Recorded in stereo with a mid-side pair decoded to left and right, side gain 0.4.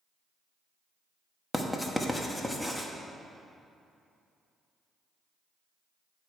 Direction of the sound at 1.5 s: 15° left.